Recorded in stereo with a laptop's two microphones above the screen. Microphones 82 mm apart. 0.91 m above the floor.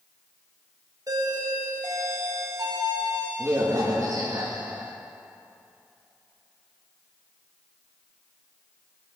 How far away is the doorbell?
About 2 m.